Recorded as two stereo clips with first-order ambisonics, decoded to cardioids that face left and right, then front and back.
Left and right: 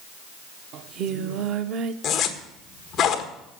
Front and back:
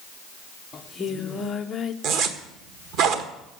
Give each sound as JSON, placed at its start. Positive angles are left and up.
{"t": 0.7, "sound": "singing", "azimuth_deg": -65, "distance_m": 0.8}
{"t": 2.0, "sound": "a zipper", "azimuth_deg": 150, "distance_m": 1.4}